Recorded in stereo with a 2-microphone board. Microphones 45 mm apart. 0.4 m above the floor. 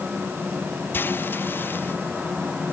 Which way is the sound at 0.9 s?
50° left (ahead or behind).